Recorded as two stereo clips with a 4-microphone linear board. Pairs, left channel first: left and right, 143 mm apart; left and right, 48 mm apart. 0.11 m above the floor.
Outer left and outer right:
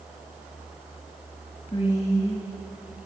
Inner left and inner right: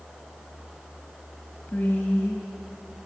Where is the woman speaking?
30° left (ahead or behind), 1.3 m.